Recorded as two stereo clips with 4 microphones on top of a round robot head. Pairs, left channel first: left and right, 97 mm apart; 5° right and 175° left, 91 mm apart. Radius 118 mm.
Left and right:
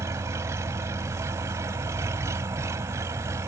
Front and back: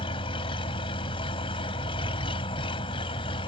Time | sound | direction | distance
0.0 | an engine running | 30° right | ?